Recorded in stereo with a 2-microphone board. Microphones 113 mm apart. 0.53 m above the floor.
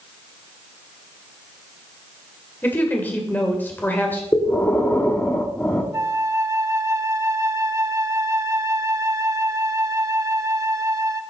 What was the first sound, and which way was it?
A woman speaking, 15° left (ahead or behind).